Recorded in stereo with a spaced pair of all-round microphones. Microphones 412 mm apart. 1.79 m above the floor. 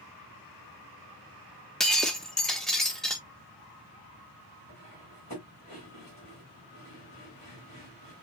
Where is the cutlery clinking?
40° left (ahead or behind), 5 m.